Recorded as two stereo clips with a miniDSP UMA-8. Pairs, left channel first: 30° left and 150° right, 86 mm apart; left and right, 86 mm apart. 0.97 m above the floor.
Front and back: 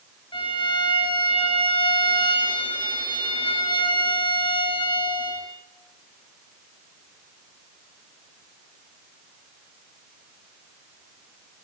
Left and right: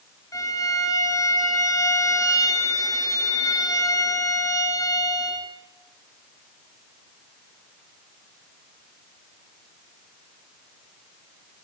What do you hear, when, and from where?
0.3 s a violin: 40° left, 5.5 m